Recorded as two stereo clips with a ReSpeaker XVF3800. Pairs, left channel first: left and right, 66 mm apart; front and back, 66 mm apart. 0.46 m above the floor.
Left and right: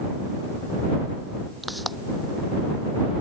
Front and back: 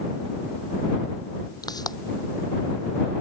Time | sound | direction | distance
1.6 | a pop | straight ahead | ?